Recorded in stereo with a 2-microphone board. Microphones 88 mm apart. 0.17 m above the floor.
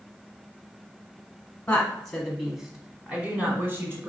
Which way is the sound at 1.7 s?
15° left (ahead or behind).